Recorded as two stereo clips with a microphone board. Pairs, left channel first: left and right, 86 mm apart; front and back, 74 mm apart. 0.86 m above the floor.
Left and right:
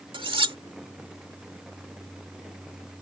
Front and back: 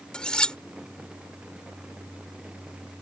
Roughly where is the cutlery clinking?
Right.